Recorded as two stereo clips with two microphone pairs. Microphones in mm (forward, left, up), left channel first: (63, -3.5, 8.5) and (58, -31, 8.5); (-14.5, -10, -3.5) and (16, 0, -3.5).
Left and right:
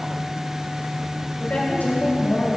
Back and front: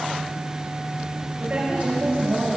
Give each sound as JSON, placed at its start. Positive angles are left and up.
{"t": 1.4, "sound": "a woman speaking", "azimuth_deg": 65, "distance_m": 6.0}